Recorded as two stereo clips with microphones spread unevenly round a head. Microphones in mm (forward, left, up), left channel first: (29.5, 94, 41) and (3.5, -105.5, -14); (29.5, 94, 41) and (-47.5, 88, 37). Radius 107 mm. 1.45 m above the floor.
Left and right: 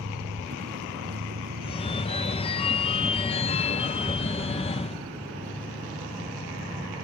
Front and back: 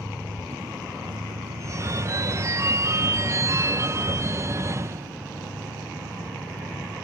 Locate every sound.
0.0 s a vehicle: 130° right; by 7.0 s 165° right
1.6 s a phone ringing: 135° left